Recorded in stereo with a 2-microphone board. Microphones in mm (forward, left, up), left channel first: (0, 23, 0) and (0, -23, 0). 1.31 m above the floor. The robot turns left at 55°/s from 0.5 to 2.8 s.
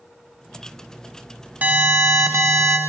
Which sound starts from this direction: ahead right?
An alarm, at 1.6 s.